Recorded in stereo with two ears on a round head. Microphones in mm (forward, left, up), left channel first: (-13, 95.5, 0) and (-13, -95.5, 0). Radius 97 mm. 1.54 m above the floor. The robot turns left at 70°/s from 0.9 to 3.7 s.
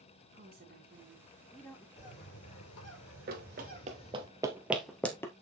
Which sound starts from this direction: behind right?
A woman speaking, at 0.3 s.